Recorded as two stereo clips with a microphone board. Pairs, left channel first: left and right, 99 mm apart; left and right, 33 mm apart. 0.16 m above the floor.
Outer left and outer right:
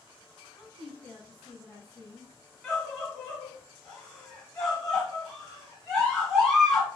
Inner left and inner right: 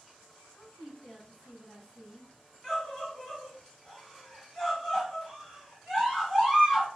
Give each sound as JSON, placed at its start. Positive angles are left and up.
{"t": 0.6, "sound": "a woman speaking", "side_deg": 25, "distance_m": 1.0}
{"t": 2.6, "sound": "a scream", "side_deg": 5, "distance_m": 1.5}